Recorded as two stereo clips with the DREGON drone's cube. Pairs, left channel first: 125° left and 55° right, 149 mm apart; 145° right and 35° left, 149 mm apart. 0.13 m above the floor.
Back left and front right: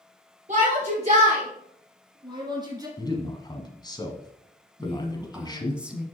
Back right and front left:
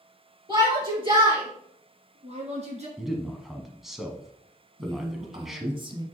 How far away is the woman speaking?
About 1.2 m.